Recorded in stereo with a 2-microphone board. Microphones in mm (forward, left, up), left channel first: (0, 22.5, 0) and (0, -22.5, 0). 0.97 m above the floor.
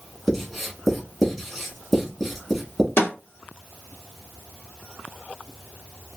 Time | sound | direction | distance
0.3 | writing | 5° left (ahead or behind) | 1.1 m
3.0 | a snare drum | 85° left | 1.4 m